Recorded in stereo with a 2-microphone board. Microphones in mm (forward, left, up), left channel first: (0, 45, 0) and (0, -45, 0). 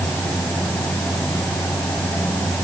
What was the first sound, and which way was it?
Only background noise.